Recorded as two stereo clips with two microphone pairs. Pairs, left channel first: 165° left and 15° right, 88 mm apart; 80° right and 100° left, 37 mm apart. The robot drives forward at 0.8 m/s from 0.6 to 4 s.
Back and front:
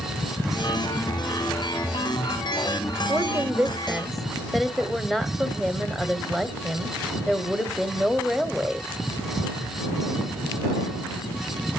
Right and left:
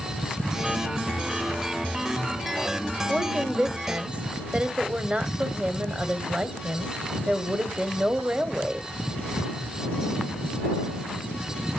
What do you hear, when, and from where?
3.1 s a woman speaking: 30° left, 1.3 m; by 8.9 s 80° left, 1.0 m